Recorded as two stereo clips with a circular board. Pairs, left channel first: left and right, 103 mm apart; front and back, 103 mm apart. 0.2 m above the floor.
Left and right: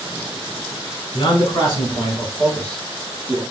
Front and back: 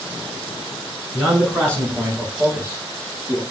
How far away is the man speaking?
About 1.5 m.